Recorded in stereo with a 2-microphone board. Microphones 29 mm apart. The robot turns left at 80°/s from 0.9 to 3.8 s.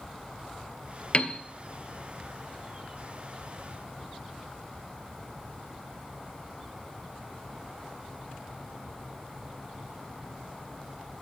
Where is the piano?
40° left (ahead or behind), 0.7 m; by 1.4 s 25° left (ahead or behind), 0.7 m.